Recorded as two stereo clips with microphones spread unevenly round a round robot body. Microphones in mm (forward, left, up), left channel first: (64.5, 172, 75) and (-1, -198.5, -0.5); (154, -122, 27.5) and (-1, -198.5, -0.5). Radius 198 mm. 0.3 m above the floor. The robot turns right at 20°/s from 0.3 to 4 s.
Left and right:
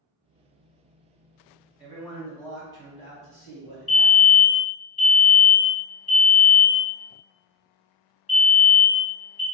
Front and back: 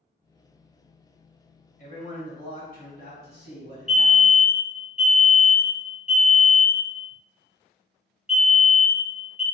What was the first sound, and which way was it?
A man speaking, 25° right.